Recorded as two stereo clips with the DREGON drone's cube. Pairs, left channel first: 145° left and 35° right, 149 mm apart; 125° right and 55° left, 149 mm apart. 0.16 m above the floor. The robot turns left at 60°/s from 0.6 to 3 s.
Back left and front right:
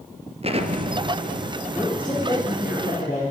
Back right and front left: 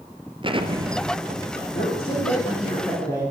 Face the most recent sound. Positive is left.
turn(degrees=165)